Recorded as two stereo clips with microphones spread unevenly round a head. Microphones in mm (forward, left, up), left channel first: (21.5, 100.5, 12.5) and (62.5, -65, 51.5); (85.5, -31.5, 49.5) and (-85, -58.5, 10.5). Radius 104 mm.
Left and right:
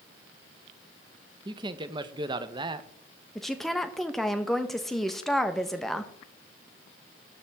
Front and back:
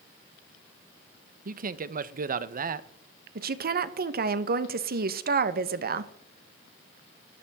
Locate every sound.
1.4 s a man speaking: 150° right, 0.7 m
3.4 s a woman speaking: 175° right, 0.9 m